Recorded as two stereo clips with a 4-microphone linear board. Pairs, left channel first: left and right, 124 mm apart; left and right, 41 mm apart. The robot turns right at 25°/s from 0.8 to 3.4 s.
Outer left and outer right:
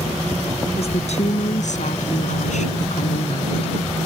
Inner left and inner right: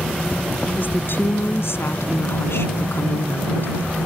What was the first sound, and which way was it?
A woman speaking, 60° left.